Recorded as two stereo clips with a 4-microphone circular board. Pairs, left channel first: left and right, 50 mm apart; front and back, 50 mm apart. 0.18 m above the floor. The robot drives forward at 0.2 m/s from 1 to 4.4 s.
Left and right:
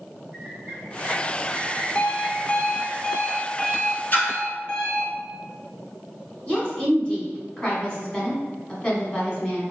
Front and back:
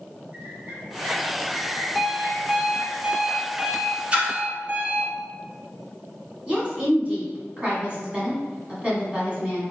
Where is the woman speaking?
140° left, 1.4 m.